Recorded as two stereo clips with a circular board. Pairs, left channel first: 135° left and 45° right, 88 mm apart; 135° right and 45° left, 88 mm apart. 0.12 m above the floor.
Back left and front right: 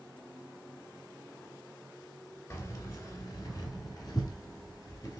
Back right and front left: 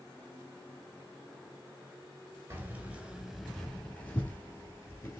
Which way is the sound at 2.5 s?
95° left.